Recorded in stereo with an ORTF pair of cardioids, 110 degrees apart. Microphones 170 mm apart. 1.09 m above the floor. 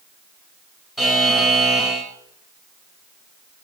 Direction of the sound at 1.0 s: Straight ahead.